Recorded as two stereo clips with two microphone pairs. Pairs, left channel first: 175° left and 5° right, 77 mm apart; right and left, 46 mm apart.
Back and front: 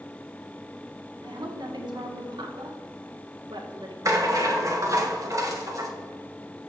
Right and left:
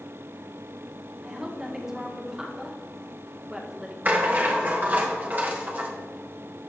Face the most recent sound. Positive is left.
turn(degrees=40)